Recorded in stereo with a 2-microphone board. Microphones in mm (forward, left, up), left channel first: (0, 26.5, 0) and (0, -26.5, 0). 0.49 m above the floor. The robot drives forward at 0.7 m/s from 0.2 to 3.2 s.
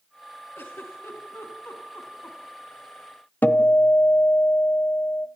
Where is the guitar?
35° left (ahead or behind), 1.1 m.